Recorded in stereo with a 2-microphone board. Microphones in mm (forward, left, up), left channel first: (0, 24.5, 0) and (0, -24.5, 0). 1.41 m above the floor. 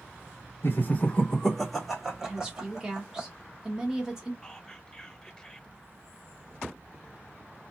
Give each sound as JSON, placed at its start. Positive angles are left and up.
{"t": 0.6, "sound": "laughter", "side_deg": 55, "distance_m": 1.2}
{"t": 2.2, "sound": "a woman speaking", "side_deg": -15, "distance_m": 1.4}
{"t": 4.4, "sound": "whispering", "side_deg": 15, "distance_m": 0.9}